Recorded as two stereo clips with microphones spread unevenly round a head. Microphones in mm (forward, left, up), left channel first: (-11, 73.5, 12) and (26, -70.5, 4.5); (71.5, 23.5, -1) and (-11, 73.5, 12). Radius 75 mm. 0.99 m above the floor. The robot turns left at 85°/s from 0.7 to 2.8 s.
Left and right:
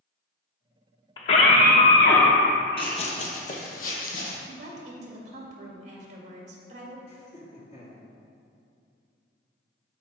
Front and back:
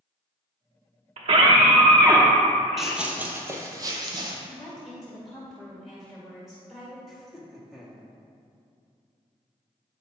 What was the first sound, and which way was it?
A scream, 165° left.